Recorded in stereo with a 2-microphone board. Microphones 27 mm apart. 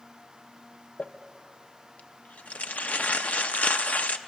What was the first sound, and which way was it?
Crumpling, 75° left (ahead or behind).